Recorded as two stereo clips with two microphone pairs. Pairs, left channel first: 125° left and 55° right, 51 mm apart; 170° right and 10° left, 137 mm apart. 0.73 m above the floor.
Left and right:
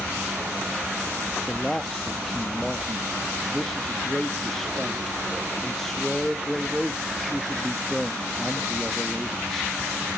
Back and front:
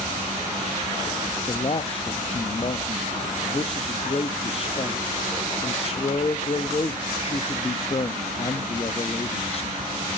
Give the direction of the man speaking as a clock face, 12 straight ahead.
5 o'clock.